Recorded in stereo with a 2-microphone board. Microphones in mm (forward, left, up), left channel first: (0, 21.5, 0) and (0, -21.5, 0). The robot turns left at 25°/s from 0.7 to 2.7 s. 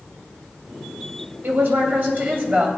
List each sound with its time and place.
1.4 s a woman speaking: 115° right, 3 m; by 2.8 s 145° right, 3 m